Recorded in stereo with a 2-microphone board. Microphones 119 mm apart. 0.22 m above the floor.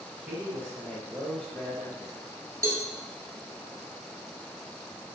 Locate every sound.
0.2 s a man speaking: 15° right (ahead or behind), 1.2 m; by 2.1 s 20° left (ahead or behind), 1.4 m
2.6 s a cowbell: 25° right (ahead or behind), 0.7 m